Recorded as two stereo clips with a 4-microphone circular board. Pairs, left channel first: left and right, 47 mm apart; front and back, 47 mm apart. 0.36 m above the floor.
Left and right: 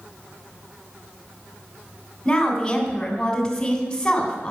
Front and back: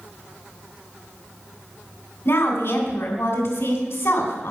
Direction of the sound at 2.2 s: 20° left.